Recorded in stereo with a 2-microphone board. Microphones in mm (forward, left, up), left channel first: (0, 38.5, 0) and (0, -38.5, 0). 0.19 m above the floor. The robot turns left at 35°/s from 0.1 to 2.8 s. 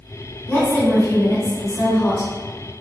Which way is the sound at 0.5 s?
140° left.